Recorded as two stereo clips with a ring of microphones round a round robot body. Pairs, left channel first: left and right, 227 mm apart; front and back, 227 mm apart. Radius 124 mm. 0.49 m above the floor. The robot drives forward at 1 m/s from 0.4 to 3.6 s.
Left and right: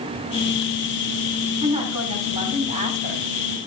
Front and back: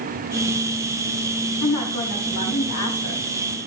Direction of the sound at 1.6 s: 25° right.